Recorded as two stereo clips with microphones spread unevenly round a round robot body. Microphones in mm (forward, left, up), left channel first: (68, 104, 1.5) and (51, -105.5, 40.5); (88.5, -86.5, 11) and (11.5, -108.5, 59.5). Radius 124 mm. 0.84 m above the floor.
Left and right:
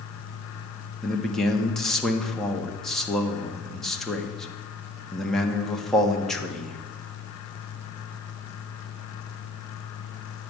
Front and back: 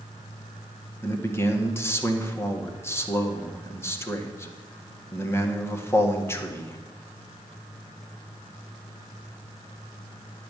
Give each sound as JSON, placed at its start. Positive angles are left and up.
{"t": 1.0, "sound": "a man speaking", "azimuth_deg": 5, "distance_m": 1.8}